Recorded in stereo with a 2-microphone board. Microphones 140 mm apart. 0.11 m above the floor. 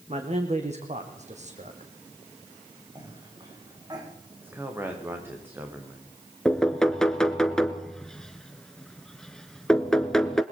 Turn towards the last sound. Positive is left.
turn(degrees=5)  # may be behind; listen again after turning